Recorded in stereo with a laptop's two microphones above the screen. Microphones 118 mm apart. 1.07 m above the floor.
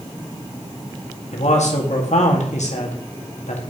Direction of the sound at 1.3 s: 75° left (ahead or behind).